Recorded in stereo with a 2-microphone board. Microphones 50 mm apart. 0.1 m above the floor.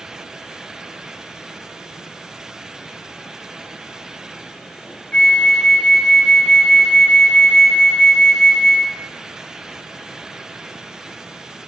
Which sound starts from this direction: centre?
A flute, at 5.1 s.